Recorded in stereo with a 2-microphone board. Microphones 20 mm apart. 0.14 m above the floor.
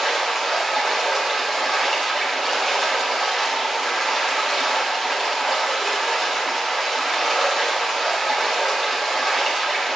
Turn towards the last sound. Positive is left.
turn(degrees=0)  # may be behind; listen again after turning